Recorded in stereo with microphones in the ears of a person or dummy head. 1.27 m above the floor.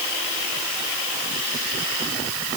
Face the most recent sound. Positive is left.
No sound to turn to.